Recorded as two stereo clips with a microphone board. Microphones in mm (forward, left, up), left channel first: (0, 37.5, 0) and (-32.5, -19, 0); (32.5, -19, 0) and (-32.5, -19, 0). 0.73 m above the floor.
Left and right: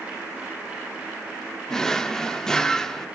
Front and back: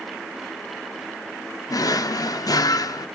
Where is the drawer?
20° right, 0.7 m.